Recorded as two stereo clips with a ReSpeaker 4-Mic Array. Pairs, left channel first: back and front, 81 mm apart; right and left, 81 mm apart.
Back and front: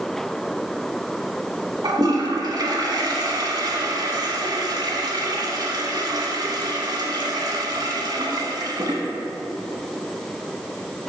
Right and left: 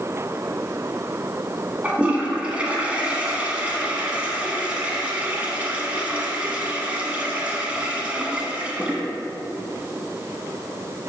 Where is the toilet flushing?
20° left, 1.0 m.